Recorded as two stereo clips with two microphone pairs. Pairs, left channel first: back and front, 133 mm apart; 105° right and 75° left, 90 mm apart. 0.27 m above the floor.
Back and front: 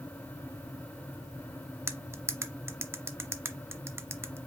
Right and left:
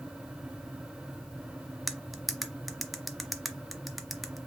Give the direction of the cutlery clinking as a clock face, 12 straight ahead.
12 o'clock.